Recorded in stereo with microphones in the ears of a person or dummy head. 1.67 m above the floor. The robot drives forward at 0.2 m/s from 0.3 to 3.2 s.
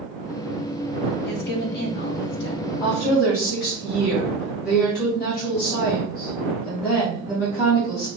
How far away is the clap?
I don't hear a clap.